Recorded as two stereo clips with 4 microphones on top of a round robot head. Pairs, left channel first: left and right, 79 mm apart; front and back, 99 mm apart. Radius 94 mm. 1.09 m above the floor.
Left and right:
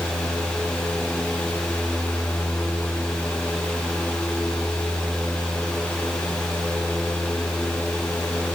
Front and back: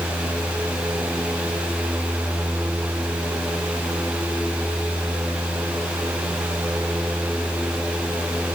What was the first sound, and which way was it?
Only background noise.